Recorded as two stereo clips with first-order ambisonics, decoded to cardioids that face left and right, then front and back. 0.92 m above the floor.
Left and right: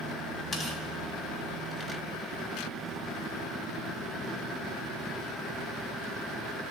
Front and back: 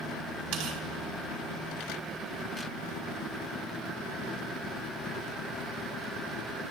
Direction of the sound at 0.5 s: 170° left.